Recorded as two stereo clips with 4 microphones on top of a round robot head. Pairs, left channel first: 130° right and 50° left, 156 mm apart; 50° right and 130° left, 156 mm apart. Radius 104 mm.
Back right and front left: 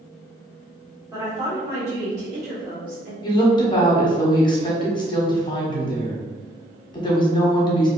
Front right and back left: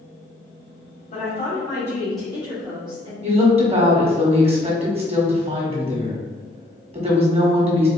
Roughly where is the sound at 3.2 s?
Behind.